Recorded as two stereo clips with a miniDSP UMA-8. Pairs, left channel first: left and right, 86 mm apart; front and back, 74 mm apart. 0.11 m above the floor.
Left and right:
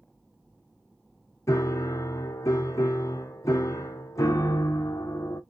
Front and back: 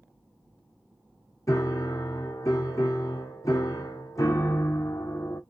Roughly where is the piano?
Ahead left.